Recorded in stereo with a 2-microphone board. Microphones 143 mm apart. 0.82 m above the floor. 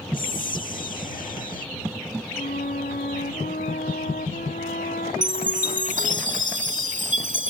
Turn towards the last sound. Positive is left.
turn(degrees=-60)  # may be behind; listen again after turning